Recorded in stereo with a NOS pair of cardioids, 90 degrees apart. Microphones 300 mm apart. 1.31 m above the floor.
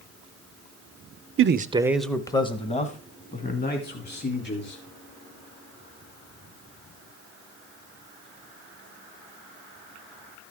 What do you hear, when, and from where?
1.4 s a man speaking: 45° right, 0.7 m; by 4.8 s 35° left, 4 m